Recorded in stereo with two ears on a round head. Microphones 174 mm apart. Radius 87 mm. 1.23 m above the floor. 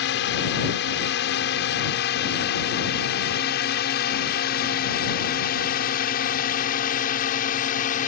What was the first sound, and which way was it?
A drone, 65° left (ahead or behind).